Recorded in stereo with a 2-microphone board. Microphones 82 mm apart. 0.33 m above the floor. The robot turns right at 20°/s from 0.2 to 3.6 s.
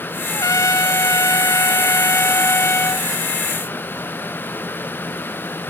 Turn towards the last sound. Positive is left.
turn(degrees=145)